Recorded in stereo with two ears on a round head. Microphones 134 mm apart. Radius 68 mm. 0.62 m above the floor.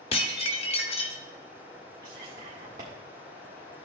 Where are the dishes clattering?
40° left (ahead or behind), 0.8 m.